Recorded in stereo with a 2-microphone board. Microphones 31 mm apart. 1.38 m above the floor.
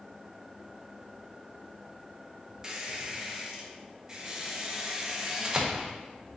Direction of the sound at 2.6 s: 20° right (ahead or behind).